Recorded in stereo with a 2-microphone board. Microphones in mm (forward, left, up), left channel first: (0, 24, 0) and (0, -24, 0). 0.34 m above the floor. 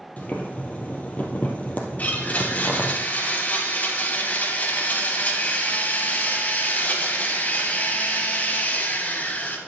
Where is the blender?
35° left (ahead or behind), 2 m.